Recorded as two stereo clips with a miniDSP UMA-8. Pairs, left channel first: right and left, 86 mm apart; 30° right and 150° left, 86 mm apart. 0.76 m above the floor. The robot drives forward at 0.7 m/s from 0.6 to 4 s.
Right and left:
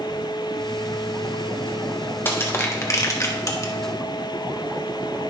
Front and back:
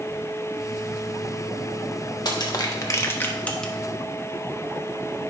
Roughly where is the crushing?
Ahead right.